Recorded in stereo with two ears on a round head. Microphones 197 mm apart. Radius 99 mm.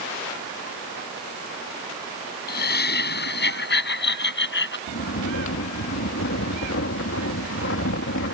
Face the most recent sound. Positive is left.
turn(degrees=60)  # may be behind; listen again after turning